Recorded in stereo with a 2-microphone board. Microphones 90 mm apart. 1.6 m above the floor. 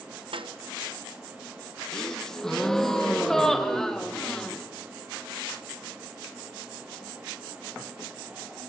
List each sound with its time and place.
0.3 s a snare drum: 70° right (ahead or behind), 1.0 m
1.9 s a gasp: 5° left (ahead or behind), 1.3 m